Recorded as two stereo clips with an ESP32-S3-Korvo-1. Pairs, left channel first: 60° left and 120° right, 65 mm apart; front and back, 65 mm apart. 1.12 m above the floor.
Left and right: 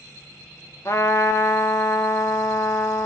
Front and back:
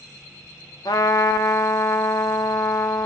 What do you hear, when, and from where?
0.8 s a trumpet: 15° left, 0.6 m